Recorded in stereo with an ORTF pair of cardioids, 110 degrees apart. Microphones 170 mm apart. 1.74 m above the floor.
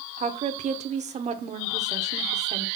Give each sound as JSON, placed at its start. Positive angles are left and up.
{"t": 0.2, "sound": "a woman speaking", "azimuth_deg": -40, "distance_m": 1.1}